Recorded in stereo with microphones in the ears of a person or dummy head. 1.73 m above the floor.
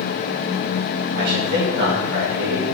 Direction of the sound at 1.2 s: 60° right (ahead or behind).